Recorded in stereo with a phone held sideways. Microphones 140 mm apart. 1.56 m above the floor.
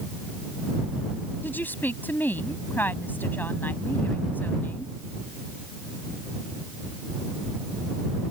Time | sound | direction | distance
1.4 | a woman speaking | 15° left (ahead or behind) | ?